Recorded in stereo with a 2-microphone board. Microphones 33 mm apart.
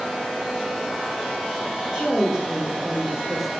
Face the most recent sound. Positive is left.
turn(degrees=-25)  # may be behind; listen again after turning